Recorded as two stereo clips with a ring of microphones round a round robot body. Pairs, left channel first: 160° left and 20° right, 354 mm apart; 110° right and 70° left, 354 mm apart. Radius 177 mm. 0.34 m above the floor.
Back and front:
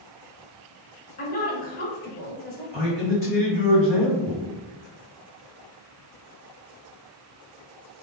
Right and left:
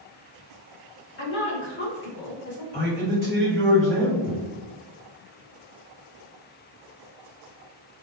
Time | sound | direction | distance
1.2 | a woman speaking | 150° right | 1.0 m
2.7 | a man speaking | 95° right | 1.5 m